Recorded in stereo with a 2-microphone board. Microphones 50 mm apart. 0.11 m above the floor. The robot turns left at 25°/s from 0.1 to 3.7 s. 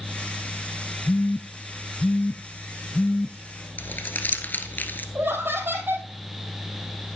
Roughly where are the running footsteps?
No running footsteps in this recording.